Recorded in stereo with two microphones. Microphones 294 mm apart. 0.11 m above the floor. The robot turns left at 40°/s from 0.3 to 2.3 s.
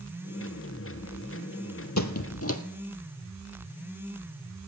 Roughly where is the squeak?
Left.